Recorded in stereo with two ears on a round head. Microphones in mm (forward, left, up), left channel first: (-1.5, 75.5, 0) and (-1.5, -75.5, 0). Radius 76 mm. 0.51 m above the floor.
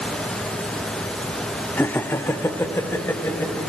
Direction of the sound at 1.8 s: 10° left (ahead or behind).